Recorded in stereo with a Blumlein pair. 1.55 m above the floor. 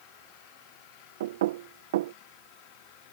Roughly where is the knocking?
Ahead right.